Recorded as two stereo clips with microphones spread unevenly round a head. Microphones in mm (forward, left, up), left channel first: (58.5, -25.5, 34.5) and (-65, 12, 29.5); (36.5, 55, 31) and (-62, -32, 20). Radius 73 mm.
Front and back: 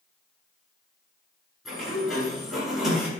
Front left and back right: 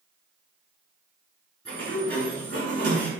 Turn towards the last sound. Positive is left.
turn(degrees=-110)